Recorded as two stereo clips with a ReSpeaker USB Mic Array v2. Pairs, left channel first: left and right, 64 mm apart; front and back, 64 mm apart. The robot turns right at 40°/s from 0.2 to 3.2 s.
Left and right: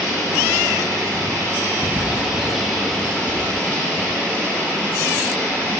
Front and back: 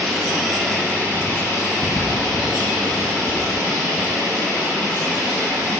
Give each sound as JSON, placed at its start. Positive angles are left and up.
{"t": 0.0, "sound": "running water", "azimuth_deg": -95, "distance_m": 4.0}